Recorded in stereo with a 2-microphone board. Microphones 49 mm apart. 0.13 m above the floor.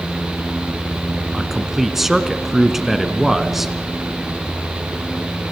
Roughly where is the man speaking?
Centre.